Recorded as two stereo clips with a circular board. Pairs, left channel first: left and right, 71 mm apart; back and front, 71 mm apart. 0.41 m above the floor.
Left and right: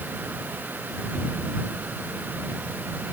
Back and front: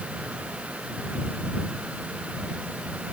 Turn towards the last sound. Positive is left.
No sound to turn to.